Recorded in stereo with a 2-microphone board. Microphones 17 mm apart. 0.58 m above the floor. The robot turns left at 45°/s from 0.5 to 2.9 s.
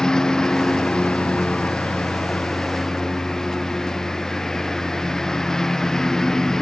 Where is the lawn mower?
140° left; by 6.6 s 30° left.